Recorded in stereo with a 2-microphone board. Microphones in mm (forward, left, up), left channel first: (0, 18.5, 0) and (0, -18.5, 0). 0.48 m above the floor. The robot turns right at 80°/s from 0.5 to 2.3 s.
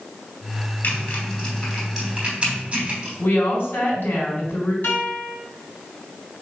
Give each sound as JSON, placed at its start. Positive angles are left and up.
{"t": 0.8, "sound": "typing on a keyboard", "side_deg": 70, "distance_m": 3.0}
{"t": 3.2, "sound": "a woman speaking", "side_deg": 70, "distance_m": 4.0}
{"t": 4.8, "sound": "a guitar", "side_deg": 75, "distance_m": 3.5}